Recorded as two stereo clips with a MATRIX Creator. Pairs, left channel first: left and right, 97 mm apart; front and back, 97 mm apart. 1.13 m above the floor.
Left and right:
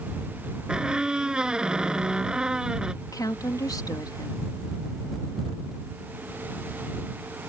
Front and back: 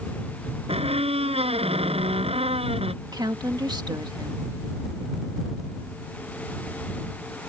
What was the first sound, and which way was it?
A squeak, 170° right.